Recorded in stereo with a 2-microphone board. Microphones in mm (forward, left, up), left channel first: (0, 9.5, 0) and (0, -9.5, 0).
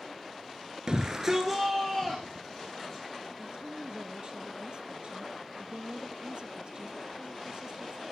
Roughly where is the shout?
Right.